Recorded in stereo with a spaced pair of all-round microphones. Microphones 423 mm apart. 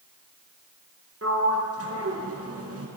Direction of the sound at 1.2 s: 30° right (ahead or behind).